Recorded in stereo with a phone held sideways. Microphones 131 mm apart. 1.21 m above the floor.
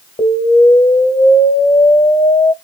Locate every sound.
0.2 s an explosion: 35° left (ahead or behind), 1.7 m